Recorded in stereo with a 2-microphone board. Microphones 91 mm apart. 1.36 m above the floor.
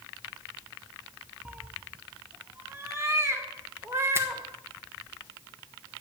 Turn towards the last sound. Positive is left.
turn(degrees=-25)  # may be behind; listen again after turning